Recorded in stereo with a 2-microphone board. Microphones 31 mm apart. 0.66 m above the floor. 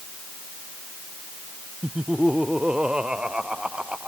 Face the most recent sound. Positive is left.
turn(degrees=-30)  # may be behind; listen again after turning